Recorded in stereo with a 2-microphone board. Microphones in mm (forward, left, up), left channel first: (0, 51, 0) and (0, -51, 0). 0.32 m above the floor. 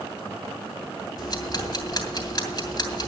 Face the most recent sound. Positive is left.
turn(degrees=40)  # may be behind; listen again after turning